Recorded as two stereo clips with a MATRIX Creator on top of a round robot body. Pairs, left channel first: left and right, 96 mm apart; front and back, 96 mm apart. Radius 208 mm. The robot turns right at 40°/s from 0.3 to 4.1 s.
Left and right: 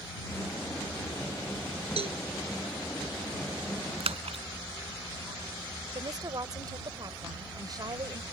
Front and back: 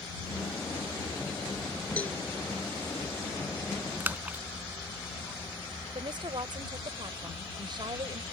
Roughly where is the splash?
Right.